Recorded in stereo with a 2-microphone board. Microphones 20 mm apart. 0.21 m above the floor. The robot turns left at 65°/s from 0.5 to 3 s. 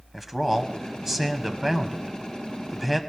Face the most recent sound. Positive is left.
turn(degrees=5)  # may be behind; listen again after turning